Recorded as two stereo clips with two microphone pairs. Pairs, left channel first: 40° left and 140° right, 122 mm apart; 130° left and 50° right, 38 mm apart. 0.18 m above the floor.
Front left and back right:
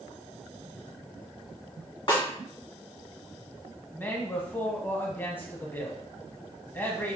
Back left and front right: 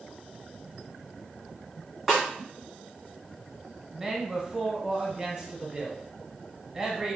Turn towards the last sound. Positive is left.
turn(degrees=-5)